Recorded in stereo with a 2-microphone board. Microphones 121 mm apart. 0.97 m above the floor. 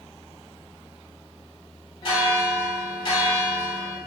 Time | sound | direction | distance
2.0 | a bell | 45° left (ahead or behind) | 1.3 m